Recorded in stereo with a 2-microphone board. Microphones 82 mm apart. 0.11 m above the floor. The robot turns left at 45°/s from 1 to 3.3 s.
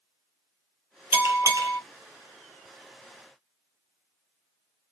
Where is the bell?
35° right, 1.0 m; by 1.8 s 65° right, 1.0 m.